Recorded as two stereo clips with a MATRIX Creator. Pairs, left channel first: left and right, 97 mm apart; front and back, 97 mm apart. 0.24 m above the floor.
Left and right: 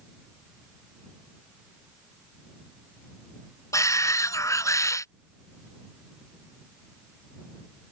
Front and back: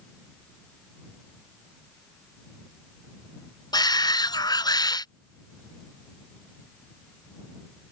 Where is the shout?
35° left.